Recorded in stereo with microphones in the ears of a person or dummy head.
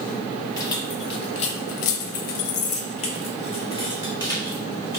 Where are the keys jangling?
25° left (ahead or behind), 1.1 m; by 5.0 s 20° left (ahead or behind), 1.8 m.